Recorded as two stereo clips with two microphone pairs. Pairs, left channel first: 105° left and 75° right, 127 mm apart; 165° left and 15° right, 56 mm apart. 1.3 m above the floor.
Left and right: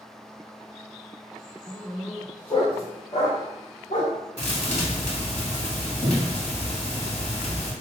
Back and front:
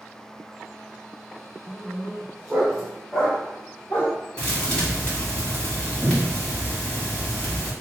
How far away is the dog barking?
About 1.6 m.